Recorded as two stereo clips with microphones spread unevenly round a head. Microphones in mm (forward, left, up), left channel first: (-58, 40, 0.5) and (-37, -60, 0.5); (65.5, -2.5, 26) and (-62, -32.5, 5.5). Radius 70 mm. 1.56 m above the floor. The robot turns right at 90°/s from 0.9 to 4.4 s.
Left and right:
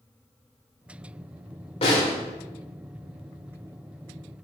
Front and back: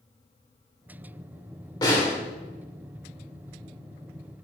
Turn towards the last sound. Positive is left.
turn(degrees=-60)